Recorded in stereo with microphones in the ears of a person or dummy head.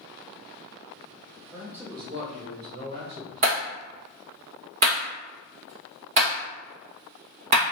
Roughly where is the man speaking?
Centre.